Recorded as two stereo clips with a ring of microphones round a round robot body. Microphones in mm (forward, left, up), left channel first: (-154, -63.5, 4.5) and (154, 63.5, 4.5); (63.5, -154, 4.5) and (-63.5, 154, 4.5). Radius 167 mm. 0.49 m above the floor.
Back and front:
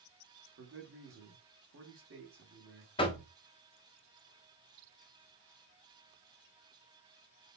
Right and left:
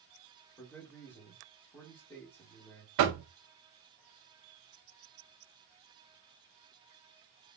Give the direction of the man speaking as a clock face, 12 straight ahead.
12 o'clock.